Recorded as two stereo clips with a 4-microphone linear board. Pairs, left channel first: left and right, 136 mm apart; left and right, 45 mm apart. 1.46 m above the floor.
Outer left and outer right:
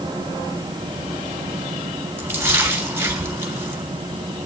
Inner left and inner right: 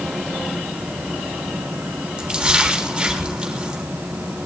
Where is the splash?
20° right (ahead or behind), 3 m.